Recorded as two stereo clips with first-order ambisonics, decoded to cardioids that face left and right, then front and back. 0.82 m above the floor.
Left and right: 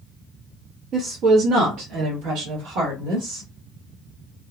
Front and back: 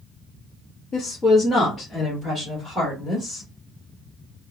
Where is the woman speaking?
50° right, 0.7 m; by 3.5 s 110° right, 1.9 m.